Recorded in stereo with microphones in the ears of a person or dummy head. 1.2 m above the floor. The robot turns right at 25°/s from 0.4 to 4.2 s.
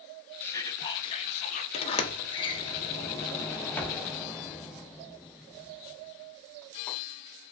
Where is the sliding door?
30° left (ahead or behind), 0.5 m; by 7.0 s 5° left (ahead or behind), 0.5 m.